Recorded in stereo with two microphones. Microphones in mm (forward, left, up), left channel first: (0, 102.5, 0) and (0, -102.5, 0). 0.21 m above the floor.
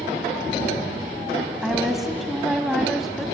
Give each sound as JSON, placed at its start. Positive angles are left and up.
{"t": 1.6, "sound": "a woman speaking", "side_deg": 0, "distance_m": 1.2}